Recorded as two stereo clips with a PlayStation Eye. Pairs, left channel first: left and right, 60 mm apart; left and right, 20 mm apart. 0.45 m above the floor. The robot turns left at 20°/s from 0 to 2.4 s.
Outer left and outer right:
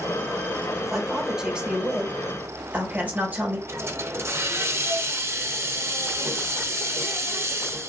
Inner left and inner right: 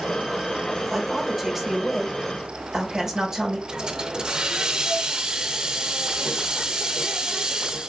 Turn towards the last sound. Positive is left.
turn(degrees=-50)  # may be behind; listen again after turning